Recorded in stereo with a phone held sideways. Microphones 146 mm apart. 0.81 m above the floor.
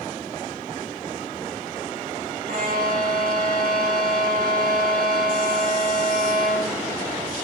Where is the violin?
80° right, 4.5 m.